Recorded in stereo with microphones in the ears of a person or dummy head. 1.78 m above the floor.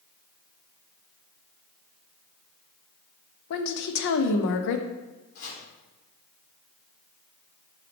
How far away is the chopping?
About 3.5 m.